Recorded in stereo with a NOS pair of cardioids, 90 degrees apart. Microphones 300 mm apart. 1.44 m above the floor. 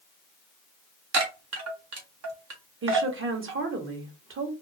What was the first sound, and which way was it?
A chime, 55° right.